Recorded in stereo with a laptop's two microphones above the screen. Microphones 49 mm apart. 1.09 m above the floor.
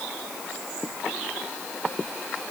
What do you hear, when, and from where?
Only background noise.